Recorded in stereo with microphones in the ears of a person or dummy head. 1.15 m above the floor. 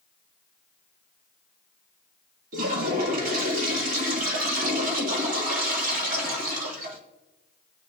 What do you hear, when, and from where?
2.5 s a toilet flushing: 50° right (ahead or behind), 1.8 m